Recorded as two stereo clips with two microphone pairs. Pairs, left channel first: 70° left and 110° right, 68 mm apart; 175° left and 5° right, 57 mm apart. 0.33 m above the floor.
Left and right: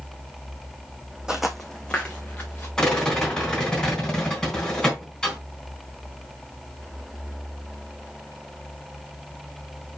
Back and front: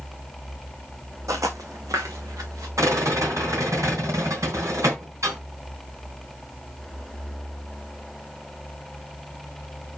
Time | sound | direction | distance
1.3 | footsteps | 25° right | 1.2 m
2.8 | a rattle | 5° right | 3.5 m